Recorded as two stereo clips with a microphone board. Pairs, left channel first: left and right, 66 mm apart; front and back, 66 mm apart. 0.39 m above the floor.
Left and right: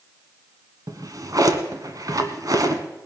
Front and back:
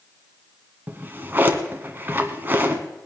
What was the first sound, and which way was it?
A drawer, 120° right.